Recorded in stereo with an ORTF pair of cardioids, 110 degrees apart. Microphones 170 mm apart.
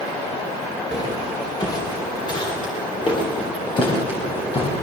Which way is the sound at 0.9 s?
20° left.